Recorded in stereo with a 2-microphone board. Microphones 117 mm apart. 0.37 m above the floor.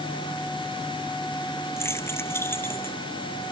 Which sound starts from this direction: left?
Keys jangling, at 1.8 s.